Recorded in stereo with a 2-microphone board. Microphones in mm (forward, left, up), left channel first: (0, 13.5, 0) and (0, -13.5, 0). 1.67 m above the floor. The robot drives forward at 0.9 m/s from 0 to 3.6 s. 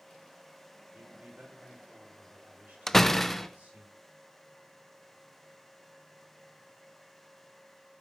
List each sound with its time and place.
0.9 s a man speaking: 80° right, 7 m
2.9 s a door slam: 10° left (ahead or behind), 0.7 m; by 3.5 s 5° left (ahead or behind), 1.2 m